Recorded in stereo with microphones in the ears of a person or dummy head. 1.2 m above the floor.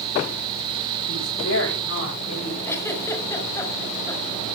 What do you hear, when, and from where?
1.1 s a woman speaking: 70° left (ahead or behind), 7 m; by 2.5 s 85° left, 7 m
2.6 s a giggle: 15° left (ahead or behind), 4 m